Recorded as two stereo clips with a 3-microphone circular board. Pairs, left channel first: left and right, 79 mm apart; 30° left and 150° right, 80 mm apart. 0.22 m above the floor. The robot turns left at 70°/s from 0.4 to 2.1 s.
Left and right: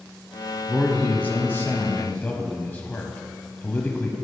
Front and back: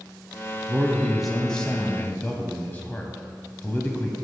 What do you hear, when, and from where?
0.7 s a man speaking: 160° left, 1.0 m; by 4.1 s 60° left, 1.0 m